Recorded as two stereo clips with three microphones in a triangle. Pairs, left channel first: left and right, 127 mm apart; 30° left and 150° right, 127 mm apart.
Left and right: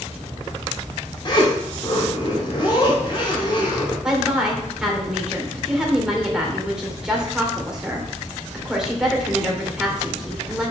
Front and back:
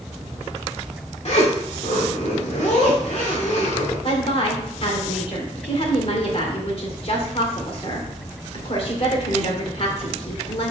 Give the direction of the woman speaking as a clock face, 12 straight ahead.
12 o'clock.